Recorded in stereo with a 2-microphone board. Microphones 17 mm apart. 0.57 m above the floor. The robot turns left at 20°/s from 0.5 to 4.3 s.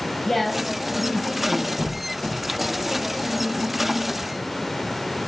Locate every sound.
0.2 s a woman speaking: 15° left (ahead or behind), 7 m; by 1.7 s 40° left (ahead or behind), 7 m
1.8 s a squeak: 25° left (ahead or behind), 5.5 m; by 2.4 s 35° left (ahead or behind), 5.5 m